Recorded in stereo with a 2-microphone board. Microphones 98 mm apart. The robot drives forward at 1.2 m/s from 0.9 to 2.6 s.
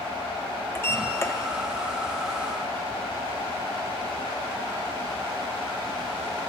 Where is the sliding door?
25° left (ahead or behind), 1.4 m.